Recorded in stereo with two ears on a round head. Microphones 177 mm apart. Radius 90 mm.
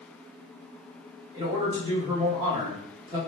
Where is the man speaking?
25° right (ahead or behind), 1.6 m.